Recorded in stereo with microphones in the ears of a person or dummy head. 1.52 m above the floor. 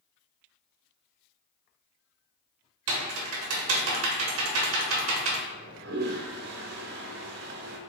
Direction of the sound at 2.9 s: 70° right (ahead or behind).